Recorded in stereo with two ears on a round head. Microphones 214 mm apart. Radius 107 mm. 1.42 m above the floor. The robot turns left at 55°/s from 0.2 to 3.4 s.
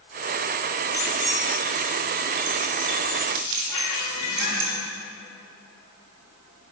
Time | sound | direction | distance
0.9 | keys jangling | 10° left (ahead or behind) | 3.5 m
3.7 | a squeak | 85° left | 4 m